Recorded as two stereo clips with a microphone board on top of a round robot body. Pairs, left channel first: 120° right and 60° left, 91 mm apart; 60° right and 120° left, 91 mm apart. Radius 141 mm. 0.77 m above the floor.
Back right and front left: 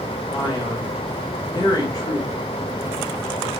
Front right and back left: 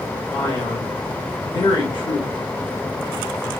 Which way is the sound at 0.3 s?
80° right.